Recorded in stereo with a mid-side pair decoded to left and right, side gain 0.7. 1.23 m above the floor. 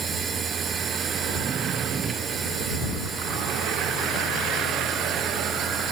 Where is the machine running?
25° right.